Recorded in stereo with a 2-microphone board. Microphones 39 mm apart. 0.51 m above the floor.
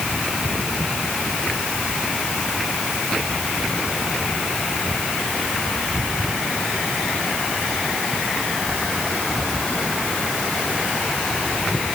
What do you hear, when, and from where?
Only background noise.